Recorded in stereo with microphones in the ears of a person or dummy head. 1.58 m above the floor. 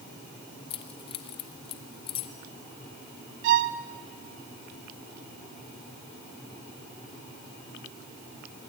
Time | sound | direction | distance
0.7 | keys jangling | 30° left (ahead or behind) | 1.1 m
3.4 | a violin | 55° right (ahead or behind) | 0.7 m